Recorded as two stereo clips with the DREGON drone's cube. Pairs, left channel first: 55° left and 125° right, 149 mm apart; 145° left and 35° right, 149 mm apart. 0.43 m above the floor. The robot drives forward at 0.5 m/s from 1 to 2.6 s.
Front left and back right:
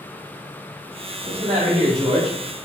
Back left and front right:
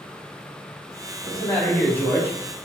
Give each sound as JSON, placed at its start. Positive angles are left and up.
{"t": 1.2, "sound": "a man speaking", "azimuth_deg": -135, "distance_m": 1.9}